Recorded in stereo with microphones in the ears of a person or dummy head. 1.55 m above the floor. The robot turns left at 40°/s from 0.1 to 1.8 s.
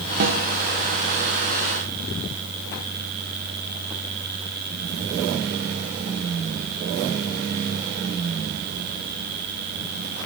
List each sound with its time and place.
0.2 s a snare drum: 45° right (ahead or behind), 0.6 m; by 0.4 s 55° right (ahead or behind), 0.6 m